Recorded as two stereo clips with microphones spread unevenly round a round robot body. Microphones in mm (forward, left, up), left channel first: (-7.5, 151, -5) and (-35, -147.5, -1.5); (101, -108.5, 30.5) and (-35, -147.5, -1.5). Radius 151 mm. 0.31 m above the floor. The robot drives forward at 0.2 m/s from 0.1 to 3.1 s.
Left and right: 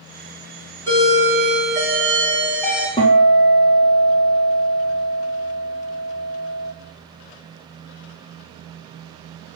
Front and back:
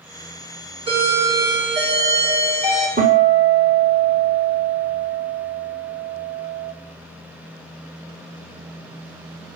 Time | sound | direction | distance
0.9 | a doorbell | 165° left | 3 m
3.0 | a guitar | 160° left | 2.5 m